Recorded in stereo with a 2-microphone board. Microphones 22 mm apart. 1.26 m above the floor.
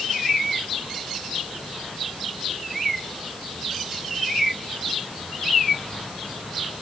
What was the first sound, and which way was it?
Only background noise.